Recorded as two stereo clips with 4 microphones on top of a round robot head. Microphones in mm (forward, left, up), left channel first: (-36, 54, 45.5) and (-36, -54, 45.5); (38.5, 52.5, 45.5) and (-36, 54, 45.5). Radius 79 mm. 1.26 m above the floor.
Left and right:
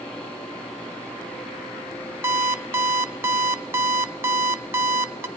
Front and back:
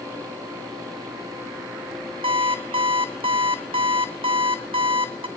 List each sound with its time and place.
2.2 s an alarm clock: 155° right, 0.5 m